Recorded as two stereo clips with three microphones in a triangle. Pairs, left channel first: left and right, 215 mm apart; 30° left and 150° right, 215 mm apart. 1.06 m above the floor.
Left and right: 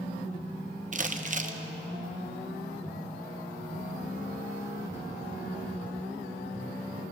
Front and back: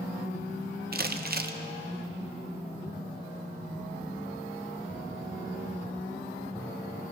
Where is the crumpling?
130° right, 0.6 m.